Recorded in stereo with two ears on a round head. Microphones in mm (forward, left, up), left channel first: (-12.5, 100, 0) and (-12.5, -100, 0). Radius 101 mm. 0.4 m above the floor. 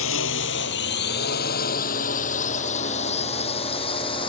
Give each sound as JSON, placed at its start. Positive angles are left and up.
{"t": 0.0, "sound": "a drone", "side_deg": 60}